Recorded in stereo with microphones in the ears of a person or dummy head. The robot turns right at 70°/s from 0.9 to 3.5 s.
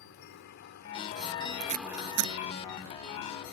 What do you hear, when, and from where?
0.0 s a helicopter: 55° left (ahead or behind); by 3.5 s 55° right (ahead or behind)
1.6 s tape being pulled: 35° right (ahead or behind); by 2.3 s 80° right